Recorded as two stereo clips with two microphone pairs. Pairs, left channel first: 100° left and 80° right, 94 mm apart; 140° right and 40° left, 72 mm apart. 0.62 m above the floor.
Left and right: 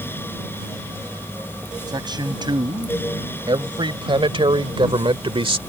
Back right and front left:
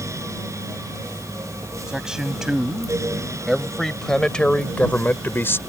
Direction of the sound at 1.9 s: 40° right.